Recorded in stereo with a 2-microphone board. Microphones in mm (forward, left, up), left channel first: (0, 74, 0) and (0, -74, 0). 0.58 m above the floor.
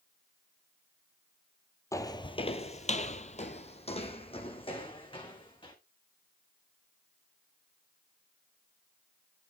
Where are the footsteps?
20° left (ahead or behind), 0.9 m; by 5.7 s 35° left (ahead or behind), 2.5 m.